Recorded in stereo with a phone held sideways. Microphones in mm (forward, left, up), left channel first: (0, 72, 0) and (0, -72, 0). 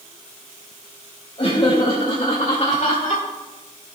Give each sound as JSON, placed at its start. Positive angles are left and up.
{"t": 1.4, "sound": "laughter", "side_deg": 45, "distance_m": 3.0}